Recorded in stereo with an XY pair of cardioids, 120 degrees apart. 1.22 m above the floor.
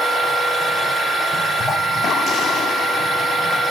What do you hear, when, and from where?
0.0 s a machine running: 20° left, 1.1 m